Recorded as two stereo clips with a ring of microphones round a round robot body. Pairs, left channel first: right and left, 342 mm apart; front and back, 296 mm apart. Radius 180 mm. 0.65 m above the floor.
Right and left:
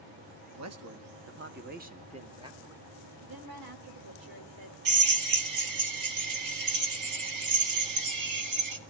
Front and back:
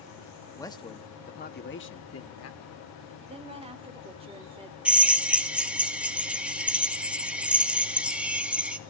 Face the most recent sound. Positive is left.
turn(degrees=95)